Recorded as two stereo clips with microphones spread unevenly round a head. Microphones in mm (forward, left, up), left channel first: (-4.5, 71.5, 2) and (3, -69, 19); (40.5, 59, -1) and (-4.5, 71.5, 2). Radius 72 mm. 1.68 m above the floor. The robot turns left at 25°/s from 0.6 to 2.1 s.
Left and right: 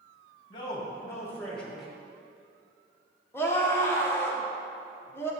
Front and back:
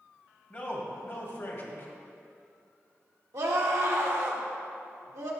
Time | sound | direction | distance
0.5 | a man speaking | 30° left | 2 m
3.3 | a scream | 170° left | 1.3 m